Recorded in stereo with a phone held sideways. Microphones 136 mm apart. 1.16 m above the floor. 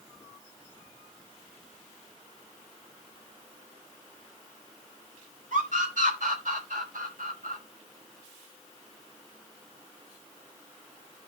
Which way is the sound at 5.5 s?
70° right (ahead or behind).